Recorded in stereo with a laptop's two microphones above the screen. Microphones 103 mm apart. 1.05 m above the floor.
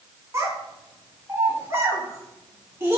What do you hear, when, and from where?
0.3 s a child speaking: 25° right (ahead or behind), 1.4 m